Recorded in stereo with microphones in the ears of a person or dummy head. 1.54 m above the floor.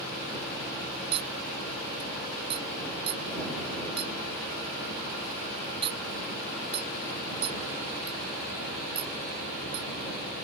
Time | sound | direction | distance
1.1 | a clink | 25° right (ahead or behind) | ?